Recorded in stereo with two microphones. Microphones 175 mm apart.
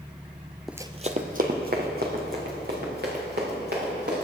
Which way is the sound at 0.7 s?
Centre (ahead or behind).